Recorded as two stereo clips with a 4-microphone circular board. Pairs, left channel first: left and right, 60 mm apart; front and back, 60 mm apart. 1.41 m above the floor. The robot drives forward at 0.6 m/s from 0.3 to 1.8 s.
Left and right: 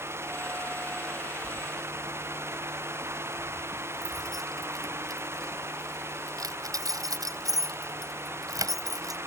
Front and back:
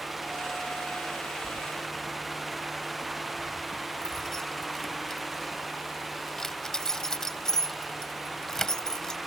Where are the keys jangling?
80° right.